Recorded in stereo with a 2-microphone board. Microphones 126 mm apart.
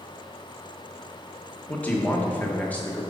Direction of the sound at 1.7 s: 15° left (ahead or behind).